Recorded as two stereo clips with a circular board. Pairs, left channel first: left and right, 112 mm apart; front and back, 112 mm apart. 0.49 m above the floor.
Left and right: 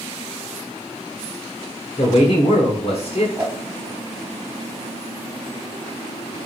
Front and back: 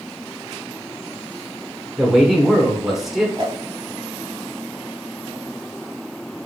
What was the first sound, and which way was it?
A man speaking, 90° left.